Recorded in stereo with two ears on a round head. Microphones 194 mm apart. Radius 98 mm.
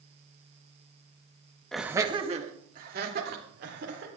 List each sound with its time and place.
1.7 s laughter: 5° left (ahead or behind), 1.0 m; by 4.1 s 50° right (ahead or behind), 3.5 m